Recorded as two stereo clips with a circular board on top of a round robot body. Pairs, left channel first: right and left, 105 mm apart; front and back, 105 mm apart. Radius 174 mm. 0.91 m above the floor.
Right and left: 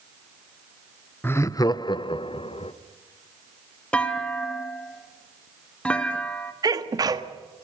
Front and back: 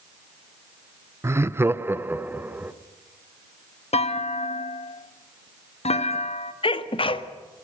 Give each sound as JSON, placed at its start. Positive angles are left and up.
{"t": 1.2, "sound": "laughter", "azimuth_deg": -145, "distance_m": 0.9}
{"t": 3.9, "sound": "a clunk", "azimuth_deg": -10, "distance_m": 1.9}
{"t": 6.6, "sound": "a sneeze", "azimuth_deg": 35, "distance_m": 1.7}